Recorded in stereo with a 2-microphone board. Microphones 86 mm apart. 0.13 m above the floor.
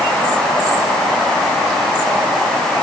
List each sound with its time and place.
Only background noise.